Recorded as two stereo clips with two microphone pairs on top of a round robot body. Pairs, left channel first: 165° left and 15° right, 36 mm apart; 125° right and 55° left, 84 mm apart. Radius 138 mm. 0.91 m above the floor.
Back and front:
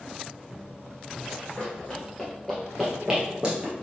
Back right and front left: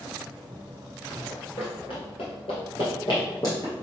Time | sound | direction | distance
1.3 | running footsteps | 135° right | 1.6 m